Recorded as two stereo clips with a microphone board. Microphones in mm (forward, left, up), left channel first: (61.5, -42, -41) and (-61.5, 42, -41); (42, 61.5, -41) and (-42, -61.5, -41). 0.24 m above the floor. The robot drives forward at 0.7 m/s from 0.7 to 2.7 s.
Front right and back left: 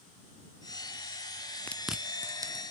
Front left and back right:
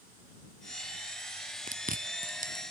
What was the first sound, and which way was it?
Chewing, 110° right.